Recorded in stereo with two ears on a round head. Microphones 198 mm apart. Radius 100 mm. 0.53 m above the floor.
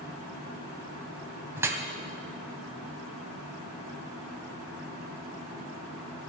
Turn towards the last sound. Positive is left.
turn(degrees=-10)  # may be behind; listen again after turning